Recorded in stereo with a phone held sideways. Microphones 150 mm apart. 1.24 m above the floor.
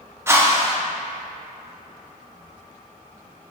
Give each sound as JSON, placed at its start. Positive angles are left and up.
{"t": 0.3, "sound": "a whoosh", "side_deg": -15, "distance_m": 0.7}